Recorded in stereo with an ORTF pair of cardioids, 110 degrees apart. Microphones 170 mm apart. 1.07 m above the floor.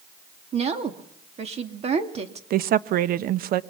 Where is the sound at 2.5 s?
65° right, 0.9 m.